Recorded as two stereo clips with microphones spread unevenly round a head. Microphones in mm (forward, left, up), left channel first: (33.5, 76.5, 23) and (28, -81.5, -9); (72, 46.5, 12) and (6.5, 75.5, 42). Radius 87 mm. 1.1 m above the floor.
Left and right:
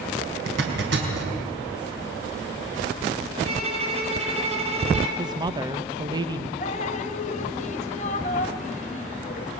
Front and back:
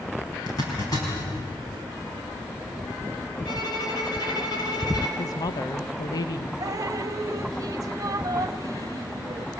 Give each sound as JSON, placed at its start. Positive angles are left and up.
{"t": 0.5, "sound": "a zipper", "azimuth_deg": -85, "distance_m": 4.5}
{"t": 3.5, "sound": "a violin", "azimuth_deg": -45, "distance_m": 4.0}
{"t": 5.2, "sound": "a woman speaking", "azimuth_deg": -30, "distance_m": 0.9}
{"t": 6.6, "sound": "dripping", "azimuth_deg": 135, "distance_m": 1.1}